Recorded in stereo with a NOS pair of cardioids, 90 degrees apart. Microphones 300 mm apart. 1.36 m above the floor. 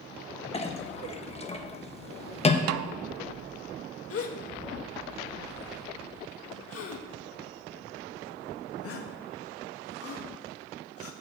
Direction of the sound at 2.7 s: 65° right.